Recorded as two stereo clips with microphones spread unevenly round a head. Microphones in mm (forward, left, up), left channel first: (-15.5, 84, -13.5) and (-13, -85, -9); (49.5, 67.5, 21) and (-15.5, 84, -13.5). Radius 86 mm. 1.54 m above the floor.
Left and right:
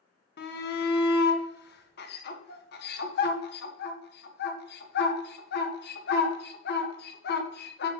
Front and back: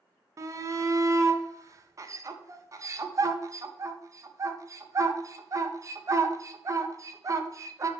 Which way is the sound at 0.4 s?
120° left.